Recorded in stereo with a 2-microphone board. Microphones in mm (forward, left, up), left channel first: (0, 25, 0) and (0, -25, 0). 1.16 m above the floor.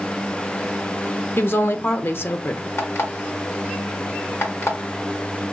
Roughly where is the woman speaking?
Left.